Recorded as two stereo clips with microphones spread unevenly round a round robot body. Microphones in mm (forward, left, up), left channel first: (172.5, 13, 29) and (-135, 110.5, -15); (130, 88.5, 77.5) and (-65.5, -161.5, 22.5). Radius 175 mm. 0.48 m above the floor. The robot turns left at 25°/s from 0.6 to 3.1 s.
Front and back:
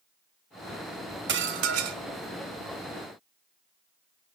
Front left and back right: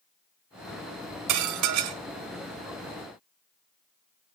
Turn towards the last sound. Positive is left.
turn(degrees=170)